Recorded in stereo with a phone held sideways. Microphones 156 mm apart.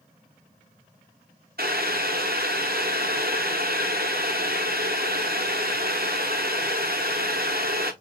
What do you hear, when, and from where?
1.6 s boiling: 75° right (ahead or behind), 0.8 m